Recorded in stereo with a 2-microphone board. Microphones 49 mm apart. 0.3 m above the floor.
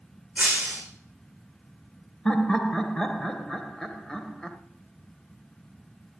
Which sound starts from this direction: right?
Breaking glass, at 0.4 s.